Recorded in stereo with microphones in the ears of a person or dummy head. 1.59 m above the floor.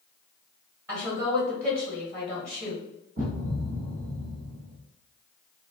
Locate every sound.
0.9 s a woman speaking: 15° right (ahead or behind), 1.5 m
3.2 s a thud: 40° right (ahead or behind), 2.0 m